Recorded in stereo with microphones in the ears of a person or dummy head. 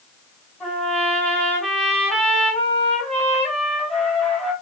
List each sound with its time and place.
0.6 s a trumpet: centre (ahead or behind), 3.5 m